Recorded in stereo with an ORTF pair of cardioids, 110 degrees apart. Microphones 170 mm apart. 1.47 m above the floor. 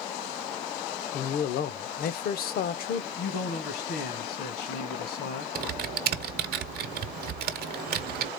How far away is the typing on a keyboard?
About 0.8 m.